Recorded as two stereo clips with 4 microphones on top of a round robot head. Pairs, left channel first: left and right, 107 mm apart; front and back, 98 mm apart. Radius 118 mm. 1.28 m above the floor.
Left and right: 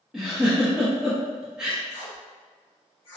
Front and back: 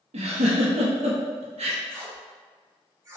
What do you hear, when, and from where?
0.1 s a giggle: 175° right, 0.8 m
1.9 s tape being pulled: 125° left, 1.6 m